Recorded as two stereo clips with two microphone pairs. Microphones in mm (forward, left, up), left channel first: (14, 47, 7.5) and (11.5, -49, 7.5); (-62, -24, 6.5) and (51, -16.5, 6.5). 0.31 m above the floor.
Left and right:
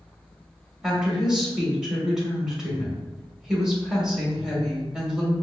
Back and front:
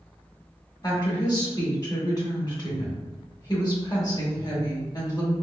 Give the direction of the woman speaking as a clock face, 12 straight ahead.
6 o'clock.